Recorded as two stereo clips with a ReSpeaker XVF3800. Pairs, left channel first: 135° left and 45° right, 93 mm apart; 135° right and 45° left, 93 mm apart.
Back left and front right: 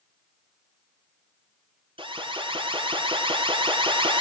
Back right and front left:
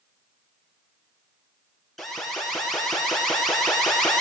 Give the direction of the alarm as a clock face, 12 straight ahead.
2 o'clock.